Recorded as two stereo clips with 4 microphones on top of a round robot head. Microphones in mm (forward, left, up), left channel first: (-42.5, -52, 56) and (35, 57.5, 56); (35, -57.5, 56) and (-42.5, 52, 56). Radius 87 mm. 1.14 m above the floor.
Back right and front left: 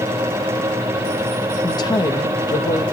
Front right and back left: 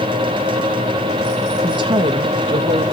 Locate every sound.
1.6 s a woman speaking: straight behind, 1.8 m